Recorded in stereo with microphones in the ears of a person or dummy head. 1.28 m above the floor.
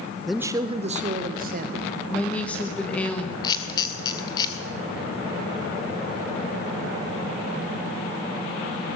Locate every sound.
0.3 s a man speaking: 5° left (ahead or behind), 0.6 m; by 1.9 s 45° right (ahead or behind), 1.8 m
2.1 s a woman speaking: 15° left (ahead or behind), 1.4 m
3.4 s a camera shutter: 20° left (ahead or behind), 2 m